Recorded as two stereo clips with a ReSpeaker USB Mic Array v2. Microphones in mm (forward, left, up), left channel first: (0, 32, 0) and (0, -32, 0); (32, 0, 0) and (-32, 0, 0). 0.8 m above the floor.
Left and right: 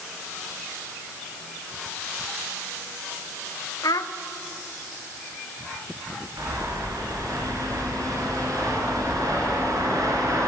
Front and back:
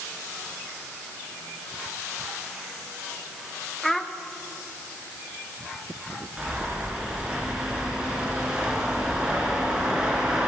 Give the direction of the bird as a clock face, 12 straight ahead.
3 o'clock.